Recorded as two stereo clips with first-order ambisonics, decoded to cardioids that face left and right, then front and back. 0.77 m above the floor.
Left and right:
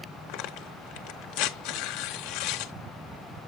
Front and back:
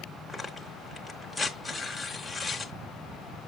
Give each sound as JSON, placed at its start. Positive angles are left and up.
{"t": 0.3, "sound": "tearing paper", "azimuth_deg": 85, "distance_m": 0.7}